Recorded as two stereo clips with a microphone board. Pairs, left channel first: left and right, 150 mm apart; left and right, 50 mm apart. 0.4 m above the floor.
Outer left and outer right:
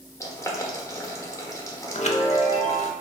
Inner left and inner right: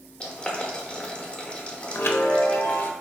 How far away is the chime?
About 0.6 m.